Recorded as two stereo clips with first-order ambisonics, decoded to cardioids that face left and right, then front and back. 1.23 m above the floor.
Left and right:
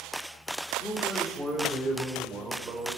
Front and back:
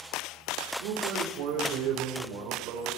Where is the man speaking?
175° left, 3 m; by 3.0 s 150° right, 4.5 m.